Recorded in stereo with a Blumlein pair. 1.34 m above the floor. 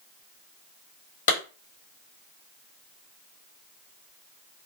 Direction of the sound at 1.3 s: 55° left.